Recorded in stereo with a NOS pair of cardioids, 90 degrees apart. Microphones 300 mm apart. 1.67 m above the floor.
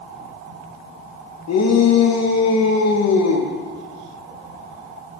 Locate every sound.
1.5 s a shout: 60° left, 2.5 m